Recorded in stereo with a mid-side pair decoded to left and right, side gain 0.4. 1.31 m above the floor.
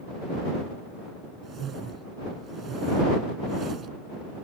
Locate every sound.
1.4 s a whoosh: 65° right